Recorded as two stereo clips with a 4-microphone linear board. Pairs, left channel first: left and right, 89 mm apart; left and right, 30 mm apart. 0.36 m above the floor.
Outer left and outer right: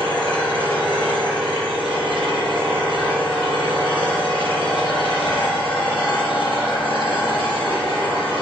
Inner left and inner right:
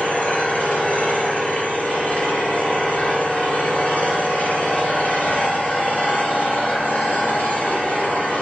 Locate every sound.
0.0 s an engine running: 70° left (ahead or behind), 3 m